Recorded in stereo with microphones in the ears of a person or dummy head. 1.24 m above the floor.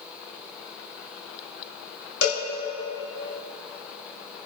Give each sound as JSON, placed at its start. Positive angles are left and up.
{"t": 2.2, "sound": "a cowbell", "side_deg": 75, "distance_m": 3.0}